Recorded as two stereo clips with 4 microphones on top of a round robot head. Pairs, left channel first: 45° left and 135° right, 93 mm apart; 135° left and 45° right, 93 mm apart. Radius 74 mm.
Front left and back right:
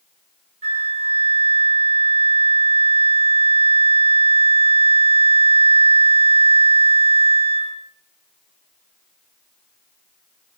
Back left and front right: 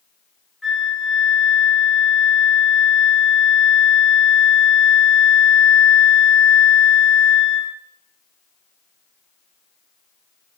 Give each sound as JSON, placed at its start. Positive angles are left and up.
{"t": 0.6, "sound": "a flute", "azimuth_deg": -135, "distance_m": 0.8}